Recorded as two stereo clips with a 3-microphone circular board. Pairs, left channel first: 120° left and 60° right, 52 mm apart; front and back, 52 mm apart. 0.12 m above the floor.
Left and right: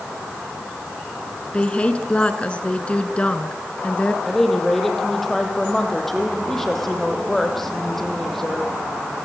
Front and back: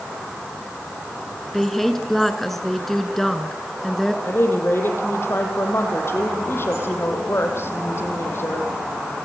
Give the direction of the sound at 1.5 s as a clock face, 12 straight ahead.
9 o'clock.